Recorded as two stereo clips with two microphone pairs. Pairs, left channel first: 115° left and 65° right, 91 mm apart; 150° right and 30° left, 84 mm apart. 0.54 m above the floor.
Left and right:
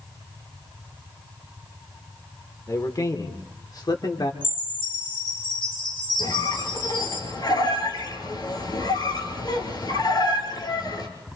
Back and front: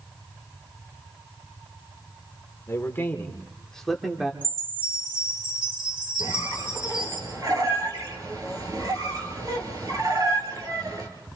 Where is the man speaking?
160° left, 1.9 m; by 4.3 s 110° left, 1.6 m.